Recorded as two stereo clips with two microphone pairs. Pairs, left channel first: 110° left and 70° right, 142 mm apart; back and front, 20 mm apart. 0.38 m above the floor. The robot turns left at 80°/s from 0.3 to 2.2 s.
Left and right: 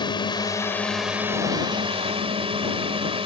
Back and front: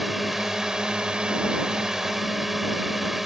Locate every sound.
0.0 s a drone: 75° left; by 3.3 s 75° right